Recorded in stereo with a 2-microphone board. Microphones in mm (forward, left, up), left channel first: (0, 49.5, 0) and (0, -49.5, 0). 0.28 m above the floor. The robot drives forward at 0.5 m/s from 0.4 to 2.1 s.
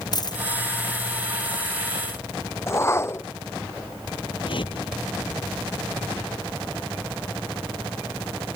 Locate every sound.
0.1 s a dropped coin: 45° left (ahead or behind)
2.7 s a whoosh: 25° left (ahead or behind)
4.4 s a whoosh: 60° left (ahead or behind)